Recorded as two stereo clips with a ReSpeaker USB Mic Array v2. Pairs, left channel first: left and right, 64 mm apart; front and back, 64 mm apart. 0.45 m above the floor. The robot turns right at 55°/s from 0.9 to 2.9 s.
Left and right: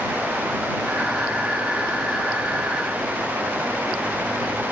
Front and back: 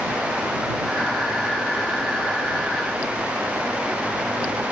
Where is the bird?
No bird in this recording.